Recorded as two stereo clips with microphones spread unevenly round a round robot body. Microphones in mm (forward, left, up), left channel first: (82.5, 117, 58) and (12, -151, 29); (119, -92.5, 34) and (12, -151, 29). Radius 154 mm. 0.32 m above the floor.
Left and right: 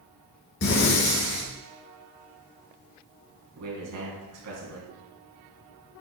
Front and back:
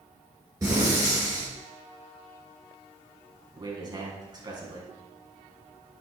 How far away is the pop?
I don't hear a pop.